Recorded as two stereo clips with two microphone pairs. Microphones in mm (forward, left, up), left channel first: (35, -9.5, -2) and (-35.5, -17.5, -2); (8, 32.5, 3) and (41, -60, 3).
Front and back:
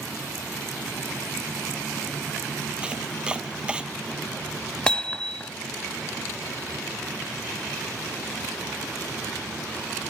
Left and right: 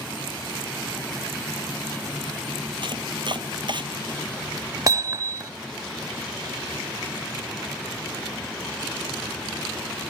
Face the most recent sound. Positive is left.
turn(degrees=-65)